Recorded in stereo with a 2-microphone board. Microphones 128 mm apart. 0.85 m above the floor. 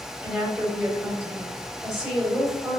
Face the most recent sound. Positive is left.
turn(degrees=-5)  # may be behind; listen again after turning